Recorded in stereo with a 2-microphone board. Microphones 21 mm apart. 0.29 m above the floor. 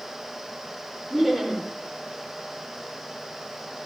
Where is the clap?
No clap in this recording.